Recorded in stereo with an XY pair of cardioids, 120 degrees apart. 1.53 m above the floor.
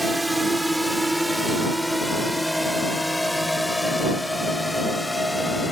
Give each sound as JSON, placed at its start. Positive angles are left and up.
{"t": 0.0, "sound": "a drone", "azimuth_deg": -10}